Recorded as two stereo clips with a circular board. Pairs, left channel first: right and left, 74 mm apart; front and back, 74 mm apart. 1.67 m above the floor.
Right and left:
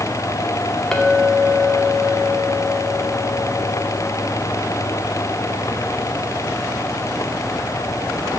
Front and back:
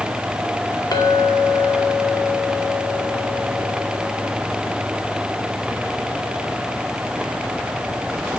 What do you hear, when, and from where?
0.9 s a clink: 10° right, 2 m